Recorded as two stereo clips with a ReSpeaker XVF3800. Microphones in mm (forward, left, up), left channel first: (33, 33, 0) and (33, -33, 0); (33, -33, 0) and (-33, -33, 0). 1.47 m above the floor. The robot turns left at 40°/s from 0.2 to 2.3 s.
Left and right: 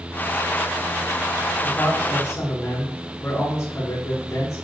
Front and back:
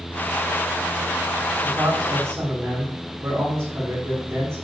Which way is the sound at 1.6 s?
160° left.